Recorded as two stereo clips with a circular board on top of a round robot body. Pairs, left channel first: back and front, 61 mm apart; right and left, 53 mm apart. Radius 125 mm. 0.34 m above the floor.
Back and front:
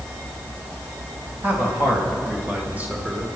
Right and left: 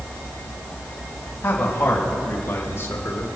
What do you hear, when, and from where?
1.4 s a man speaking: 45° right, 3 m; by 3.3 s 70° right, 2.5 m